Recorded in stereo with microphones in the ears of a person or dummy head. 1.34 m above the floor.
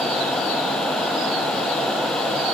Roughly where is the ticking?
I don't hear ticking.